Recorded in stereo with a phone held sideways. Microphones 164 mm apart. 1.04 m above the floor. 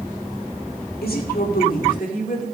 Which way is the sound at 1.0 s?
80° left.